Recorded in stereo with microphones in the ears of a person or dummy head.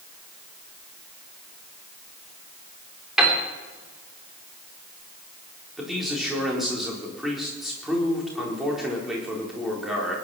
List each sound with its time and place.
3.2 s a piano: centre (ahead or behind), 3.5 m
5.8 s a man speaking: centre (ahead or behind), 4 m